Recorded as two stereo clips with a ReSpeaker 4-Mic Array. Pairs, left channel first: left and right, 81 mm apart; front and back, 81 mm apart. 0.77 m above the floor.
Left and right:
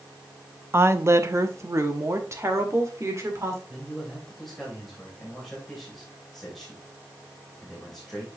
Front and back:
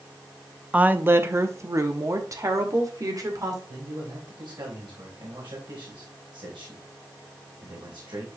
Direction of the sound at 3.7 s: Straight behind.